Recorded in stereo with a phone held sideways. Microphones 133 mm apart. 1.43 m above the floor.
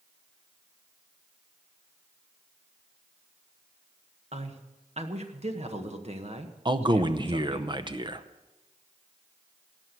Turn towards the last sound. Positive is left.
turn(degrees=-35)  # may be behind; listen again after turning